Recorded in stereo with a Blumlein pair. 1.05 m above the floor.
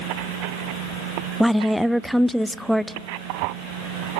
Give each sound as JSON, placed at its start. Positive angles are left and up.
{"t": 1.4, "sound": "a woman speaking", "azimuth_deg": 0, "distance_m": 0.5}